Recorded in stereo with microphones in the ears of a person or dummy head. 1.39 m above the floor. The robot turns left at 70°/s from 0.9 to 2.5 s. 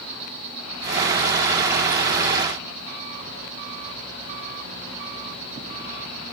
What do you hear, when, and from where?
0.0 s an insect: 40° right, 8 m; by 6.3 s 150° right, 8 m